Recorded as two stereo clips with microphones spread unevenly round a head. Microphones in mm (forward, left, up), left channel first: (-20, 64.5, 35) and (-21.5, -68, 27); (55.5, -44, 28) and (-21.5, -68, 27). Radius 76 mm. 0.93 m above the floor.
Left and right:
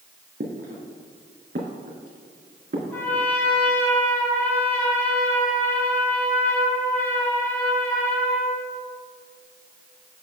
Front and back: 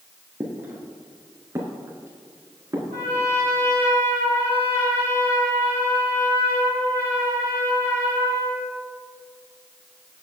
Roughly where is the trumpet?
Behind.